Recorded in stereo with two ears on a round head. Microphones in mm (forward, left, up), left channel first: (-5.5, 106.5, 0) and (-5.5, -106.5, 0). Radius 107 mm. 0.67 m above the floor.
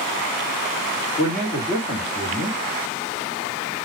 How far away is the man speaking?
About 1.6 m.